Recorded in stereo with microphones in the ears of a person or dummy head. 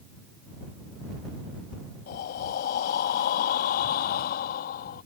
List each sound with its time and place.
2.1 s breathing: 45° left (ahead or behind)